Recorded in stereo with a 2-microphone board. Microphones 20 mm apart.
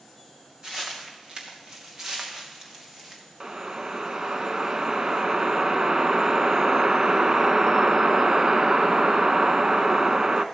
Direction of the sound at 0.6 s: 45° right (ahead or behind).